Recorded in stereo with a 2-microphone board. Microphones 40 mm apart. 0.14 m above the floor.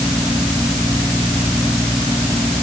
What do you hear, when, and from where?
Only background noise.